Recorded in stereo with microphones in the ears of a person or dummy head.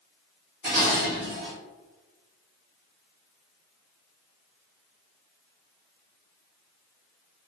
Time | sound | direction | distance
0.6 | dishes clattering | 25° right (ahead or behind) | 0.8 m